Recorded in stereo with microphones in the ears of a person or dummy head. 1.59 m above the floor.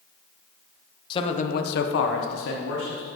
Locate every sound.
1.1 s a man speaking: 25° left (ahead or behind), 0.9 m; by 3.1 s 70° left (ahead or behind), 1.7 m